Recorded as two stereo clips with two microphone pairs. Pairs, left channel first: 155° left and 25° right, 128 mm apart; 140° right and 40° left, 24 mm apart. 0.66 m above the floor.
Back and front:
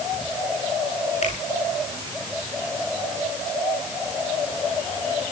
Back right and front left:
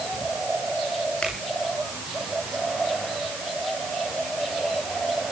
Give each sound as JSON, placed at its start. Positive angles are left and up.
{"t": 1.2, "sound": "a finger snap", "azimuth_deg": 180, "distance_m": 7.5}